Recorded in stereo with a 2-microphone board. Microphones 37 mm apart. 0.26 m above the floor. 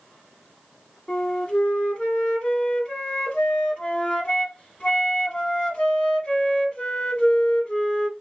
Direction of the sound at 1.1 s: 35° left (ahead or behind).